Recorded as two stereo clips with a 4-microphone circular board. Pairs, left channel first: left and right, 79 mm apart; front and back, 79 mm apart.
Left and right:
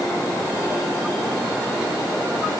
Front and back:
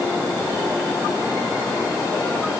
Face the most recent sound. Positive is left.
No sound to turn to.